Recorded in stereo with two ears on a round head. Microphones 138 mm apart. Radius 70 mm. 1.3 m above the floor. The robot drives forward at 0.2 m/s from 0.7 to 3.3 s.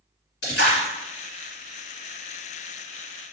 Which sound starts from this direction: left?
A splash, at 0.4 s.